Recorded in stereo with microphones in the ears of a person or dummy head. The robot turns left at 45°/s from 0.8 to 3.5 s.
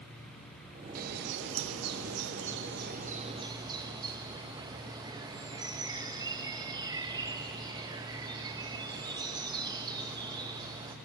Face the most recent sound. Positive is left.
turn(degrees=-160)